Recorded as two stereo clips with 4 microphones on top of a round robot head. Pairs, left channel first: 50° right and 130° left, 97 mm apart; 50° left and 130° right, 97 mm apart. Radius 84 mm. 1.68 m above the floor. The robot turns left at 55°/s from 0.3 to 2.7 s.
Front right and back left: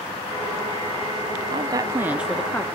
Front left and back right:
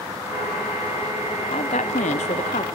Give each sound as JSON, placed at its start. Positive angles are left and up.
{"t": 1.5, "sound": "a woman speaking", "azimuth_deg": 85, "distance_m": 0.5}